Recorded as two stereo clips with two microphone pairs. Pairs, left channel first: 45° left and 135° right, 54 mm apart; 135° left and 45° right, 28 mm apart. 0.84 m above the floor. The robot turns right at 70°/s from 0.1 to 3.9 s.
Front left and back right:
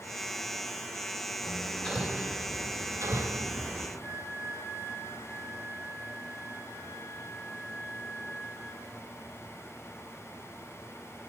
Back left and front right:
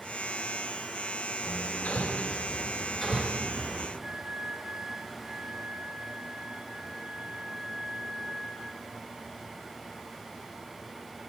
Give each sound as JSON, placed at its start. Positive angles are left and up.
{"t": 1.4, "sound": "hammering", "azimuth_deg": 95, "distance_m": 2.0}
{"t": 4.0, "sound": "a flute", "azimuth_deg": -110, "distance_m": 3.0}